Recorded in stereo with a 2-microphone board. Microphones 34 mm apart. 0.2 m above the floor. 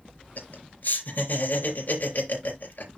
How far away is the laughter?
About 4 m.